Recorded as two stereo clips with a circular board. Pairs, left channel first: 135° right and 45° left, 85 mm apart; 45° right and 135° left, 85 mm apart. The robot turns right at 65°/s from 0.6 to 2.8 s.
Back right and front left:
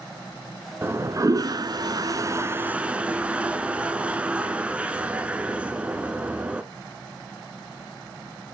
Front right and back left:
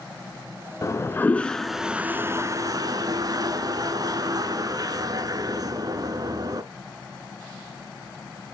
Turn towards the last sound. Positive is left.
turn(degrees=115)